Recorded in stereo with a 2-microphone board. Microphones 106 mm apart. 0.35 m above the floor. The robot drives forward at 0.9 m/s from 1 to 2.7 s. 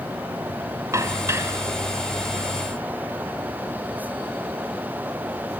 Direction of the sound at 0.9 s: 30° right (ahead or behind).